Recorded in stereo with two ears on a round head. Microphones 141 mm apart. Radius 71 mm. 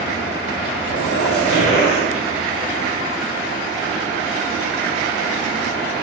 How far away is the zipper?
About 4 m.